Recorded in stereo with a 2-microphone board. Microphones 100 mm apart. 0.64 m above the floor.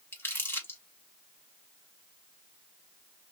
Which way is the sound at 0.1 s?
20° left (ahead or behind).